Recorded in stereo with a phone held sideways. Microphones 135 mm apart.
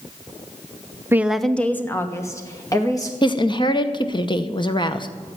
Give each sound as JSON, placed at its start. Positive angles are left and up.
{"t": 1.1, "sound": "a woman speaking", "side_deg": -20, "distance_m": 0.5}
{"t": 3.2, "sound": "a woman speaking", "side_deg": 35, "distance_m": 0.9}